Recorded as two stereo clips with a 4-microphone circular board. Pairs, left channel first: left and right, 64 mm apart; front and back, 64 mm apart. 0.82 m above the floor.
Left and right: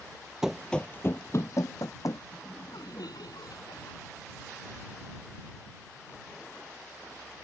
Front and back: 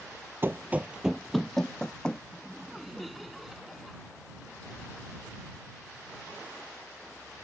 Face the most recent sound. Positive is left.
turn(degrees=90)